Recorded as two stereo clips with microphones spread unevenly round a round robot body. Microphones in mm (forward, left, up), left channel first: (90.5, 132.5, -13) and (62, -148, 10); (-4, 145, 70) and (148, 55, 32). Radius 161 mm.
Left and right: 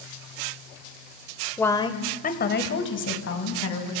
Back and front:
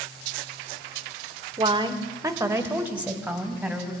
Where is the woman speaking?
5° left, 1.6 m; by 3.9 s 55° left, 4 m.